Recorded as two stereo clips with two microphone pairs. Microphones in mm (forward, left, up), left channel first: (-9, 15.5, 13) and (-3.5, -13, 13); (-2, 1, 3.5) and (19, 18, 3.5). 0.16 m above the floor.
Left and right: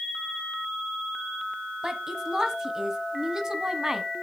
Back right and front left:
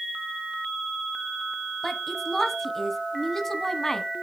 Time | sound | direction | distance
1.8 | a woman speaking | 75° right | 1.3 m